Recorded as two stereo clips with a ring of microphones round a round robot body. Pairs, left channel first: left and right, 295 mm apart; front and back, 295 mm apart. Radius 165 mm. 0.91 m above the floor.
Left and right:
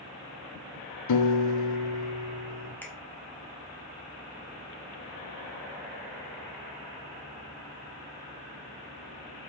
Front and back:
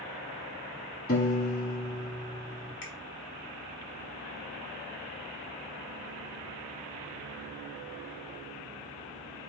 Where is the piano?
65° left, 1.4 m.